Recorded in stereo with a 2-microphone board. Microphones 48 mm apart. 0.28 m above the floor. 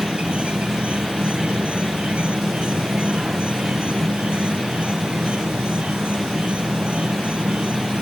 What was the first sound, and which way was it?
An insect, 25° right (ahead or behind).